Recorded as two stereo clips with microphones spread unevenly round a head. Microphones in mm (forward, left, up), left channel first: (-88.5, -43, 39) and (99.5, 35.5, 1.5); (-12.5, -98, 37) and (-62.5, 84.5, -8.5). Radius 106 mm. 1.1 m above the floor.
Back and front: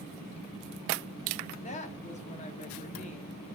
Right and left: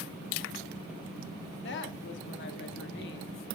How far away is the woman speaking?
About 2 m.